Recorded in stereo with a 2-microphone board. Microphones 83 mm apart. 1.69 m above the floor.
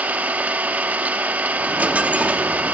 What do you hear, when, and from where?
0.0 s an engine running: 20° right (ahead or behind), 1.4 m
1.6 s a dropped coin: 15° right (ahead or behind), 1.2 m